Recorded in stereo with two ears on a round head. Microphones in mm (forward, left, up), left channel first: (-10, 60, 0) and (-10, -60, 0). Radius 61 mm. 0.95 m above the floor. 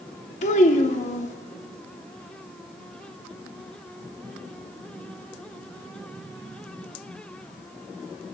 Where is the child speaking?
60° left (ahead or behind), 1.0 m.